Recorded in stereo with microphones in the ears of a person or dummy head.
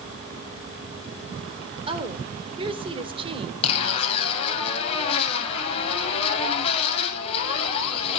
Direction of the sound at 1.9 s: 30° right (ahead or behind).